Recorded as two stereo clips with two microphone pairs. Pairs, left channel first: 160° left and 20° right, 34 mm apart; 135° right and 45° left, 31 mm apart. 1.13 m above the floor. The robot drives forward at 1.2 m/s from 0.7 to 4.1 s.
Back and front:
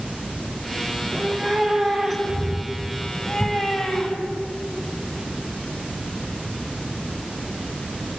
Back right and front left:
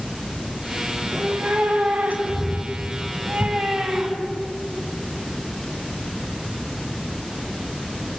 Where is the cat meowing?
60° left, 5.5 m; by 4.4 s 105° left, 5 m.